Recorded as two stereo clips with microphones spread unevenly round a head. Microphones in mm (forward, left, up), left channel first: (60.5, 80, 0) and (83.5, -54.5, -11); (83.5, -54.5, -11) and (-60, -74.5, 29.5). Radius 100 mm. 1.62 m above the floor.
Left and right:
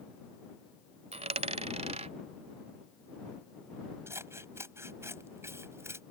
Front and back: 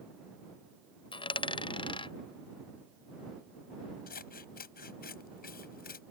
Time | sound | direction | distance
1.1 | a dropped coin | 50° right | ?
4.1 | scissors | 10° right | ?